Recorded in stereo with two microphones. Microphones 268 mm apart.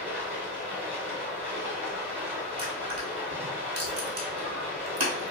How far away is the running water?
About 1.8 m.